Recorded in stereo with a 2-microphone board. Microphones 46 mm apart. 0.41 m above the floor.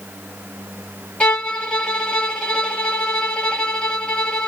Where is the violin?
15° left (ahead or behind), 2 m.